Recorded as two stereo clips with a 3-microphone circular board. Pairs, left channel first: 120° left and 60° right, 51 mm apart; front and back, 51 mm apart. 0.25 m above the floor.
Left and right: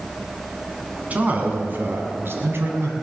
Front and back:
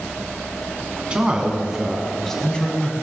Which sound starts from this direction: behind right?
A man speaking, at 1.1 s.